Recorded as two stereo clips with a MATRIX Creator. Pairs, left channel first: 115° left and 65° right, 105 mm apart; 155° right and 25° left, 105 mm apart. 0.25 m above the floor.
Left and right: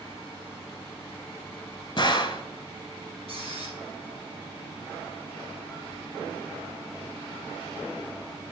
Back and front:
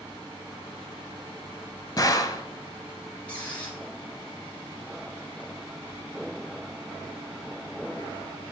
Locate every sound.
2.0 s a gunshot: 155° left, 0.7 m
3.3 s a squeak: 80° right, 2.0 m